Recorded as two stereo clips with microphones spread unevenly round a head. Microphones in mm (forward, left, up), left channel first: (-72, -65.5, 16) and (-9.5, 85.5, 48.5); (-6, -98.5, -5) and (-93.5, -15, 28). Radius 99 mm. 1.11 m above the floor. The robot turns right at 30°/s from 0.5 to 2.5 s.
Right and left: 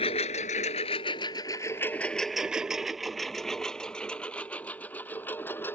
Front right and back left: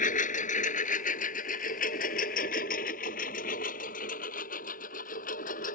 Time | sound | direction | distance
0.0 | a lawn mower | 45° right | ?